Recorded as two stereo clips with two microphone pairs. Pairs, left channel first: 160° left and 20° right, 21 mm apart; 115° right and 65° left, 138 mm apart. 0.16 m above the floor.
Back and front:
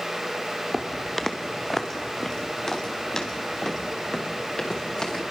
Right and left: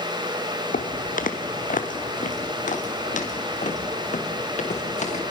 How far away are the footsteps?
About 1.5 m.